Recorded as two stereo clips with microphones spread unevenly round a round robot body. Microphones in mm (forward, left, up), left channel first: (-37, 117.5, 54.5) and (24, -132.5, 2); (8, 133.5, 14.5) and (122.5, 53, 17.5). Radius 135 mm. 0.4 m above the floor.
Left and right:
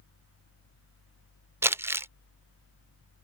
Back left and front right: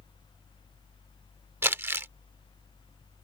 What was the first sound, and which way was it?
Crumpling, 85° right.